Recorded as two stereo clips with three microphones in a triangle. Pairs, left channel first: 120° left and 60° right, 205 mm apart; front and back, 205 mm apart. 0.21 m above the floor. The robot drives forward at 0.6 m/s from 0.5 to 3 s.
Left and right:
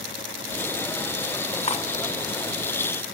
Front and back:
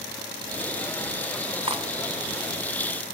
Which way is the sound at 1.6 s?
140° left.